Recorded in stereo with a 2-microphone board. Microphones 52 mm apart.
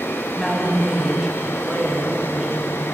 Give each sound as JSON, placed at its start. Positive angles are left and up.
{"t": 0.3, "sound": "a woman speaking", "side_deg": -5, "distance_m": 1.0}